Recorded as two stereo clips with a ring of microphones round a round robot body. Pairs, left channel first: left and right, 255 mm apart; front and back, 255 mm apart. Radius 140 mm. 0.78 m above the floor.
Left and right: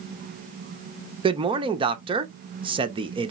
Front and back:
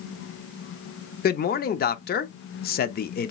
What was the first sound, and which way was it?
A man speaking, 30° right.